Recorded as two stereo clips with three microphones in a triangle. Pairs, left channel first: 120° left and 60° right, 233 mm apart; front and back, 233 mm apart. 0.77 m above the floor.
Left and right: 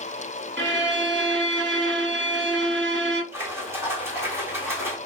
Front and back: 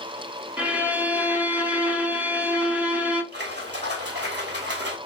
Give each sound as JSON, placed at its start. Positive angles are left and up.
{"t": 0.6, "sound": "a violin", "azimuth_deg": -95, "distance_m": 0.8}
{"t": 3.3, "sound": "a splash", "azimuth_deg": -140, "distance_m": 1.4}